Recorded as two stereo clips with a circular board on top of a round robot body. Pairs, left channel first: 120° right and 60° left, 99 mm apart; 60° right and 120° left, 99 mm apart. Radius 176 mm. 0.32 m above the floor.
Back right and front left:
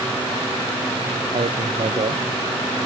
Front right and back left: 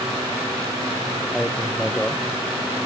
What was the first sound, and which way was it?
A man speaking, 30° left.